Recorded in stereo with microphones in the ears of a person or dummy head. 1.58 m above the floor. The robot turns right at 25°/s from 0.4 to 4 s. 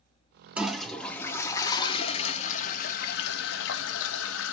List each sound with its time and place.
0.6 s a toilet flushing: 5° right, 0.6 m; by 4.5 s 80° left, 0.6 m